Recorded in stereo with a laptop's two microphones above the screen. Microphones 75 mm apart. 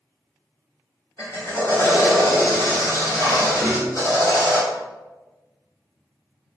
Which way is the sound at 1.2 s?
50° left (ahead or behind).